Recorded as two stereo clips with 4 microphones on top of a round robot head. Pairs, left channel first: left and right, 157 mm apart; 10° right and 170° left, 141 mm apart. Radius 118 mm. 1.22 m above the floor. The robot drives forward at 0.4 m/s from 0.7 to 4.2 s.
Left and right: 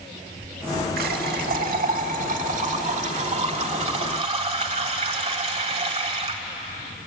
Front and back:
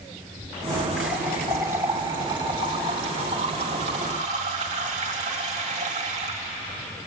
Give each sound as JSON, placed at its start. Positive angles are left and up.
{"t": 1.0, "sound": "a running tap", "azimuth_deg": -110, "distance_m": 1.6}